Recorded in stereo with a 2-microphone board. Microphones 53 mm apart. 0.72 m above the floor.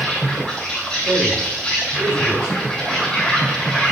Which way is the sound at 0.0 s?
15° left (ahead or behind).